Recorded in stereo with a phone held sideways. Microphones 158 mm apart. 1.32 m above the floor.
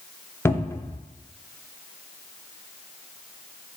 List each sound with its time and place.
0.5 s a cupboard door: 15° left (ahead or behind), 0.5 m